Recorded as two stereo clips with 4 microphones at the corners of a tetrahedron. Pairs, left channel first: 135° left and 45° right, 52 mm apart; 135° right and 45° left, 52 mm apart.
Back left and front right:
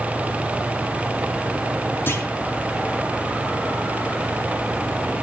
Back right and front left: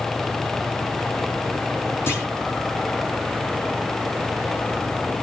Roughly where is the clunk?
Behind.